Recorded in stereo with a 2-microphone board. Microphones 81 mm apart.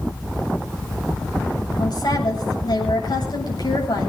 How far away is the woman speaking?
About 8.5 m.